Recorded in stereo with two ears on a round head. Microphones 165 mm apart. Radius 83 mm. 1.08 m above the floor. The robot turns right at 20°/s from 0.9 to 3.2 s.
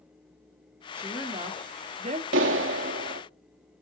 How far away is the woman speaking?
About 2 m.